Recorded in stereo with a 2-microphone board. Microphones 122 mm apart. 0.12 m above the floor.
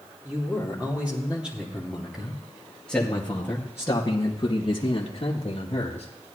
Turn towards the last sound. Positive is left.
turn(degrees=55)  # may be behind; listen again after turning